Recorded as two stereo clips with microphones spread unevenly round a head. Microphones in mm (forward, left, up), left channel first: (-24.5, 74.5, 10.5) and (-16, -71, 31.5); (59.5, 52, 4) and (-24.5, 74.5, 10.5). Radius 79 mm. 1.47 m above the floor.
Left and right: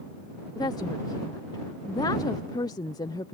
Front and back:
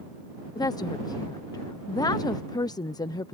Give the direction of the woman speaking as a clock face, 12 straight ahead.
11 o'clock.